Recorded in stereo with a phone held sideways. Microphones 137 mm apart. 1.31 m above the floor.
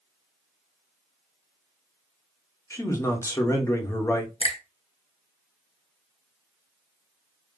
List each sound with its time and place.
2.7 s a man speaking: 20° left (ahead or behind), 1.0 m
4.4 s a finger snap: 45° left (ahead or behind), 0.6 m